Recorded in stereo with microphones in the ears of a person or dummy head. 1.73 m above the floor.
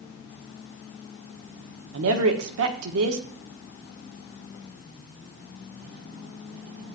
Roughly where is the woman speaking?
Right.